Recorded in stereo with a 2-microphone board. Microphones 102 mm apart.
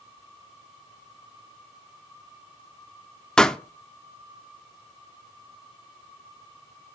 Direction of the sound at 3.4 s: 5° left (ahead or behind).